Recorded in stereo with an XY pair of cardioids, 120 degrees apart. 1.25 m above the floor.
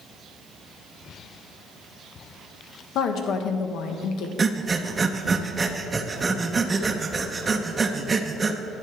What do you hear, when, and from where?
3.0 s a woman speaking: 65° left, 1.2 m
4.4 s breathing: 25° right, 0.8 m